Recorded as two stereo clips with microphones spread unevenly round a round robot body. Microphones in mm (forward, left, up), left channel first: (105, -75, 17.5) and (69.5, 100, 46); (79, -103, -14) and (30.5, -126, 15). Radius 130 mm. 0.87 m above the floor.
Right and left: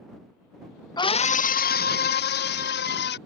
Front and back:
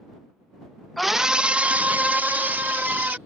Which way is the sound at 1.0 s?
30° right.